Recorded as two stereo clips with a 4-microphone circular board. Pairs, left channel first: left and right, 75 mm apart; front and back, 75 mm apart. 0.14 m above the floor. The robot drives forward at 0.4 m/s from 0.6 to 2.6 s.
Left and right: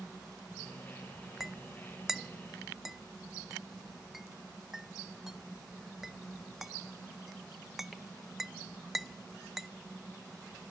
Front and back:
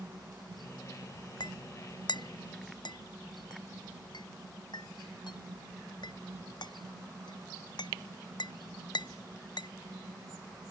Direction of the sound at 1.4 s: 5° right.